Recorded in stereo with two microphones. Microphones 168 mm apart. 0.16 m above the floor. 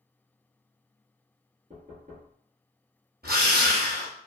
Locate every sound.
1.7 s knocking: 50° right (ahead or behind), 1.6 m
3.2 s a drill: 65° right (ahead or behind), 1.8 m